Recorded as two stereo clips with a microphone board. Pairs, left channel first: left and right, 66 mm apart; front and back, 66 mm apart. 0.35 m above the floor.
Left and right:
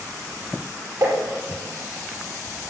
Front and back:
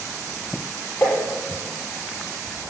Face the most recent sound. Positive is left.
turn(degrees=-45)